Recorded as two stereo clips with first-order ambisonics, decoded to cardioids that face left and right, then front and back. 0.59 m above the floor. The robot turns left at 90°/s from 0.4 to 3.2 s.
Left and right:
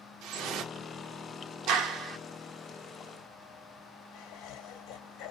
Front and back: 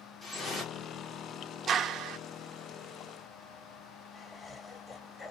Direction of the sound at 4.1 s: 80° left.